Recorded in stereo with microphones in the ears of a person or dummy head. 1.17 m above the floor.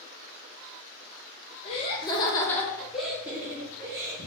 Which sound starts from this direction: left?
Laughter, at 1.6 s.